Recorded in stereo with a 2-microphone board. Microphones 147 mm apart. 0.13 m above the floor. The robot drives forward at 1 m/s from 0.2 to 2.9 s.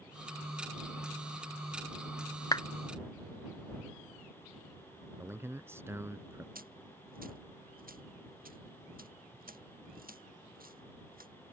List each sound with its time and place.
2.5 s a clap: 30° left (ahead or behind); by 2.6 s 25° left (ahead or behind)
5.2 s a man speaking: 15° right (ahead or behind)
6.5 s a dropped coin: 80° right